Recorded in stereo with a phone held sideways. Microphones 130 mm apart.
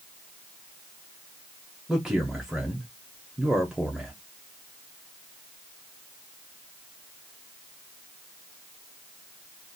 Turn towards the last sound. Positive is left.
turn(degrees=-5)  # may be behind; listen again after turning